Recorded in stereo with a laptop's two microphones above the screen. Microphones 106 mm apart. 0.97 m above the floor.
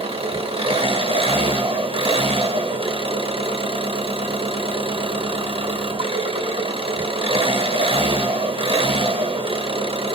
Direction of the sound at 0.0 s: 60° right (ahead or behind).